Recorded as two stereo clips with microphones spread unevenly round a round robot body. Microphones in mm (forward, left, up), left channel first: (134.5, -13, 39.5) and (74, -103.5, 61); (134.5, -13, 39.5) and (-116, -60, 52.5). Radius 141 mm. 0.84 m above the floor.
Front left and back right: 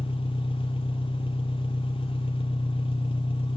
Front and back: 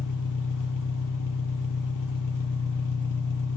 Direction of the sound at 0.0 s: 15° left.